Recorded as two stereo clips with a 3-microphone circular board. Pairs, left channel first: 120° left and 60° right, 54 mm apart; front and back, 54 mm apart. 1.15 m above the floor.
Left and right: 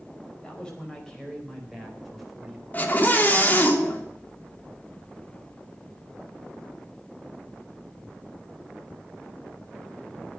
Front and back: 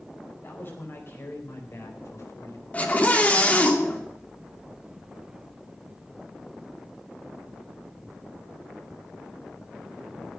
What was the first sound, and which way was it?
A man speaking, 50° left.